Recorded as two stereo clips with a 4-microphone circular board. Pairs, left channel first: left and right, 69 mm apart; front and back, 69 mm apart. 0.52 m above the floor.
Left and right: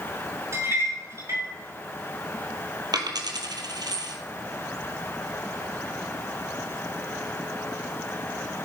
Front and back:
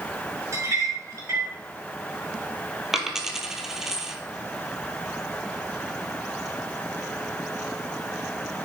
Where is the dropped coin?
95° right, 1.8 m.